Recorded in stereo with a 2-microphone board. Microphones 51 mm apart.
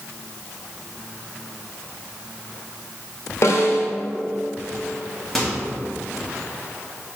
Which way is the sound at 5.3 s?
5° left (ahead or behind).